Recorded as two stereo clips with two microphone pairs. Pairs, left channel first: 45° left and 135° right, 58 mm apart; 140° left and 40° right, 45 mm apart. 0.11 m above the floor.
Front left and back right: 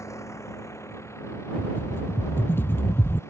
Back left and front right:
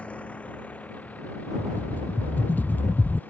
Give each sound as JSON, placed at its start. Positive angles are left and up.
{"t": 0.0, "sound": "a vehicle", "azimuth_deg": 80}
{"t": 1.6, "sound": "a rattle", "azimuth_deg": 95}